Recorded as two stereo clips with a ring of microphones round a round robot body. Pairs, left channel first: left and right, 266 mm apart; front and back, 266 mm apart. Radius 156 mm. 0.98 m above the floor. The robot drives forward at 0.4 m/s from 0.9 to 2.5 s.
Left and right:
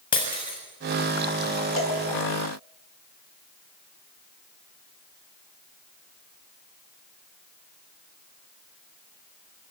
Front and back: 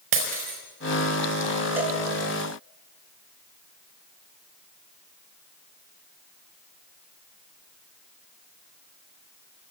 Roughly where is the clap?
I don't hear a clap.